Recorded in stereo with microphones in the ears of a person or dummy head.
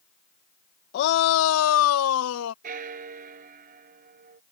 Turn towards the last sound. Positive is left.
turn(degrees=-50)  # may be behind; listen again after turning